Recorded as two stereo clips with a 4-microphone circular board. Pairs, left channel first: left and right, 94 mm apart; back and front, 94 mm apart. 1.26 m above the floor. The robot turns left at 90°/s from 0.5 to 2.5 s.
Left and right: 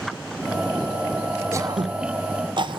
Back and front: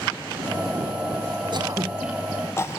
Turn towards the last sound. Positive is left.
turn(degrees=-120)